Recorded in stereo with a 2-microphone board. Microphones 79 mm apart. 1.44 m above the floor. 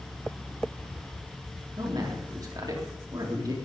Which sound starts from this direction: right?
A man speaking, at 1.8 s.